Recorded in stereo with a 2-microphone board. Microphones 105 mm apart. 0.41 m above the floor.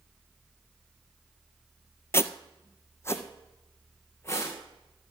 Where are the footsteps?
25° left (ahead or behind), 0.6 m.